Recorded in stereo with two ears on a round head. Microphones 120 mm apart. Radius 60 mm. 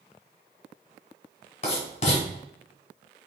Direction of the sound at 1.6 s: 60° left (ahead or behind).